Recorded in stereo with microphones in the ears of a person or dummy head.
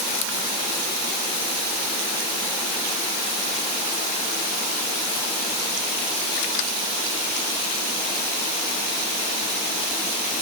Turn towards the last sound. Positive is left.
No sound to turn to.